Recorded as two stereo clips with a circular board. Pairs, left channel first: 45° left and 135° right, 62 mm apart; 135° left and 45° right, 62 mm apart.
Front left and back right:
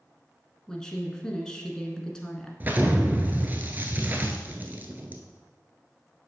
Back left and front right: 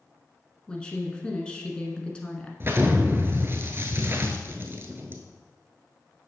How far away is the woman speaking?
About 1.2 m.